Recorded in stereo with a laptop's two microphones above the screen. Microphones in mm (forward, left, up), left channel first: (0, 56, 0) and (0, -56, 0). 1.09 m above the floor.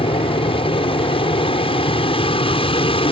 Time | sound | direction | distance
0.0 | an aircraft | 50° left (ahead or behind) | ?